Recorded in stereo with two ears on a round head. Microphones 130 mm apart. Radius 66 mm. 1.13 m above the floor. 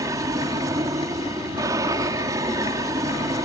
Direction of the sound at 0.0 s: 25° right (ahead or behind).